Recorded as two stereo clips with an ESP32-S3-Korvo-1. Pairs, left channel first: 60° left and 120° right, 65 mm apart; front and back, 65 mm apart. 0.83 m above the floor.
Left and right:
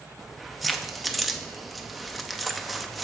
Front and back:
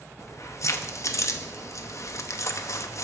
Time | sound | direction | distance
0.2 | keys jangling | 30° right | 0.7 m